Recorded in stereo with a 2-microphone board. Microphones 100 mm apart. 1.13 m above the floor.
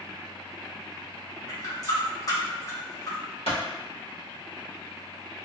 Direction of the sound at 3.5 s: 75° left (ahead or behind).